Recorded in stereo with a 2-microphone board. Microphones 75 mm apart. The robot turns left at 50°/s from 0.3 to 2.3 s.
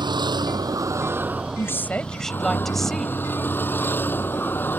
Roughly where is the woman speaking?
Ahead left.